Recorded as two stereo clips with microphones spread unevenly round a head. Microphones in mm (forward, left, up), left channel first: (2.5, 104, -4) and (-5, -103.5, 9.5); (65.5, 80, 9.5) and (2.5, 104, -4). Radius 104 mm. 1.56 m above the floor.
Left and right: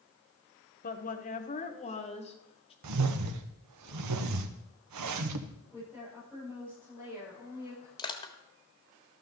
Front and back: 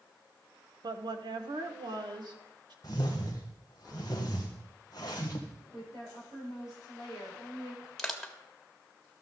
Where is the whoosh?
95° right, 1.0 m.